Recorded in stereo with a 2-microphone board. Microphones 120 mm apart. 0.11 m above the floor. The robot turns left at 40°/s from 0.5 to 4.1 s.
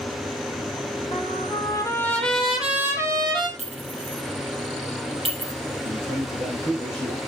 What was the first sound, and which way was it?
A trumpet, 50° left.